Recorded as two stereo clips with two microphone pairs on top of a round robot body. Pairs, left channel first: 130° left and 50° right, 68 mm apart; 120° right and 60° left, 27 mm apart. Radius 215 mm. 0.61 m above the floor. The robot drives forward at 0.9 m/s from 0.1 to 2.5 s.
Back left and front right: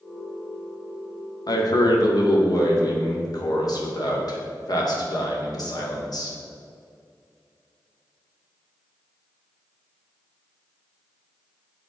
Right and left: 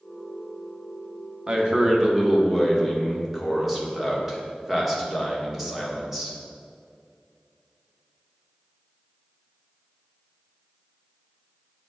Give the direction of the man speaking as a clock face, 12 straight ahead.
8 o'clock.